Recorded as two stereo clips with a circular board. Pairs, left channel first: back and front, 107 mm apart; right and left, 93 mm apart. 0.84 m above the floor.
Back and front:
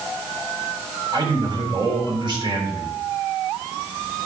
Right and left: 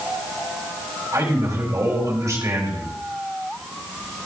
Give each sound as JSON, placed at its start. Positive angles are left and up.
{"t": 1.1, "sound": "a man speaking", "azimuth_deg": 35, "distance_m": 3.5}